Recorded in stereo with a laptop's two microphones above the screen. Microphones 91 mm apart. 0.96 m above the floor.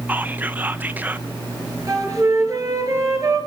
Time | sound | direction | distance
0.1 | whispering | 20° right (ahead or behind) | 0.8 m
1.9 | a flute | 35° right (ahead or behind) | 5.5 m